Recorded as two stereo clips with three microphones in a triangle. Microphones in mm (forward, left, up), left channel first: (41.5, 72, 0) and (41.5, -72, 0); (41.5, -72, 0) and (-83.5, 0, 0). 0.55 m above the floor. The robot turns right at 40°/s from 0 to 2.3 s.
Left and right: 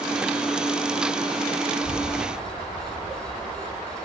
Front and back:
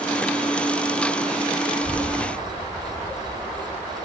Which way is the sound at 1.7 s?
130° right.